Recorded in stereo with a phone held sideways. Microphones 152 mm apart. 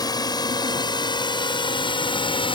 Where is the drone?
25° left (ahead or behind); by 2.5 s 35° left (ahead or behind).